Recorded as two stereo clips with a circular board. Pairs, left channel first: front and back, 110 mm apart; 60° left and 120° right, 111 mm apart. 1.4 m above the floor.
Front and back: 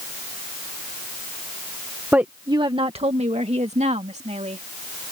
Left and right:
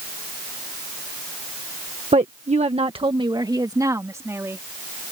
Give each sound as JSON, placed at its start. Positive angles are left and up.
{"t": 2.1, "sound": "a woman speaking", "azimuth_deg": -105}